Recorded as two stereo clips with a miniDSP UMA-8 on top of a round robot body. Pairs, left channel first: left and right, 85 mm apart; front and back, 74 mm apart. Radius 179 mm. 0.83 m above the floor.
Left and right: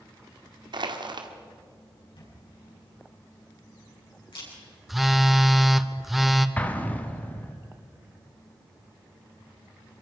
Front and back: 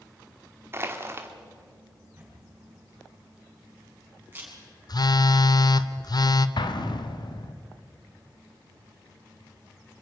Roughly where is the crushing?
Behind right.